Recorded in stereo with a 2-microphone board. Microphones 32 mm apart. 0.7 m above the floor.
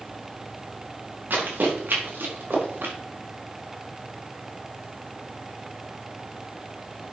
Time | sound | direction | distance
1.3 | running footsteps | 70° right (ahead or behind) | 5 m